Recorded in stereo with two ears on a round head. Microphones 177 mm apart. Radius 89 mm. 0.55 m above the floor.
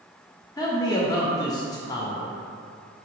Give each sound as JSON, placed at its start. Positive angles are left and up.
{"t": 0.6, "sound": "a man speaking", "side_deg": 20, "distance_m": 0.9}